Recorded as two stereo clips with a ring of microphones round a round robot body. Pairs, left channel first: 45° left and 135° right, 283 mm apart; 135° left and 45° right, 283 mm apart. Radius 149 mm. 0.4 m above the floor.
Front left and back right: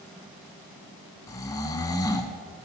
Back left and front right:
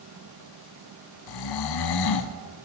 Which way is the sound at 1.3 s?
125° left.